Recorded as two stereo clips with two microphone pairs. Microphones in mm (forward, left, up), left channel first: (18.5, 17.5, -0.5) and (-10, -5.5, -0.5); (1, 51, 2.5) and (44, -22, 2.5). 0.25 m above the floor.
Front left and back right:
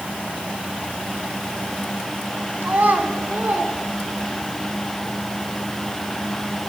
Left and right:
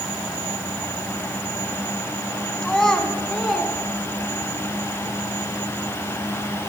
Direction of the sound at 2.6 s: 160° right.